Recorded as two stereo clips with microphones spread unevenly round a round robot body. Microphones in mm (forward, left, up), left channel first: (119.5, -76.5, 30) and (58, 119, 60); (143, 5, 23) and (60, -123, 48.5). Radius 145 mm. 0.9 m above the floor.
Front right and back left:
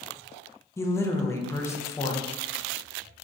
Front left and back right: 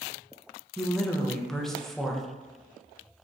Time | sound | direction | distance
0.8 | a woman speaking | 15° right | 0.5 m